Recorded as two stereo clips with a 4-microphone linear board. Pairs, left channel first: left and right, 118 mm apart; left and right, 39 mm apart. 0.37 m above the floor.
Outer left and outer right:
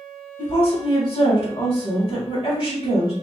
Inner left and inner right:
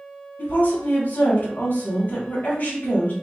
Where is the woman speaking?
50° left (ahead or behind), 1.9 m.